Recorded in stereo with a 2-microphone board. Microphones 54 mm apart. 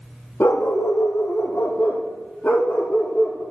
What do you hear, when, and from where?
0.4 s a dog barking: 55° left (ahead or behind), 1.5 m; by 3.4 s 20° left (ahead or behind), 3.5 m